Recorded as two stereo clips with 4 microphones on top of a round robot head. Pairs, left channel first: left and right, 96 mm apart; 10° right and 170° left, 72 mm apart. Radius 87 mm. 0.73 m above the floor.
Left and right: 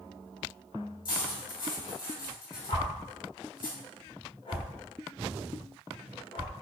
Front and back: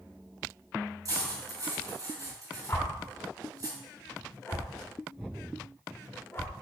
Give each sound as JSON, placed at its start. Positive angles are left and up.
{"t": 1.1, "sound": "cutlery clinking", "azimuth_deg": 130, "distance_m": 3.0}
{"t": 2.7, "sound": "a whoosh", "azimuth_deg": 50, "distance_m": 1.6}